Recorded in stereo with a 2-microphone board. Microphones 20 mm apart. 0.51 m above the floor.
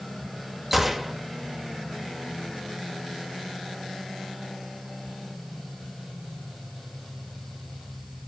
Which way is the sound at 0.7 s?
10° right (ahead or behind).